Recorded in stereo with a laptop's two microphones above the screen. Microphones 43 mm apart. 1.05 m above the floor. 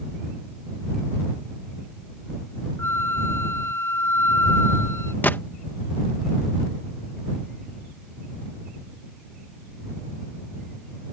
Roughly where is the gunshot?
Left.